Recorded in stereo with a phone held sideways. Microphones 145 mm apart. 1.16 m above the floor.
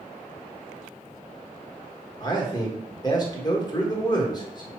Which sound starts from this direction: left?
A man speaking, at 2.2 s.